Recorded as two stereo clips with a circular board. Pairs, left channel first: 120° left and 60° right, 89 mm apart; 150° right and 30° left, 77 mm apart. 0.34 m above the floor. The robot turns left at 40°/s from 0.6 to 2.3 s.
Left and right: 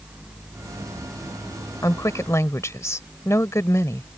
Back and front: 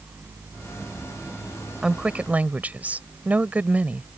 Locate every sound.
1.8 s a woman speaking: 105° left; by 4.2 s 85° left